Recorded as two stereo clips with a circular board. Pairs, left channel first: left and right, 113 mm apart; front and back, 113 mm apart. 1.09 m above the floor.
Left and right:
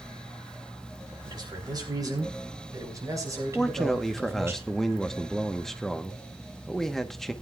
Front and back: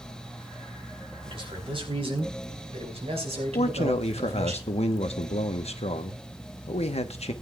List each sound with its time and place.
1.2 s a man speaking: 140° right, 3 m; by 4.5 s 155° right, 6 m
3.5 s a man speaking: straight ahead, 1.0 m